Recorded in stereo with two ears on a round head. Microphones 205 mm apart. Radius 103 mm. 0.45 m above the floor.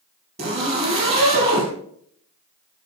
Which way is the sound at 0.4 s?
30° right (ahead or behind).